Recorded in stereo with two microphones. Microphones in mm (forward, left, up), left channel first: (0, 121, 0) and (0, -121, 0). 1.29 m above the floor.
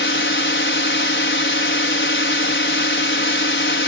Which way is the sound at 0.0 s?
50° left (ahead or behind).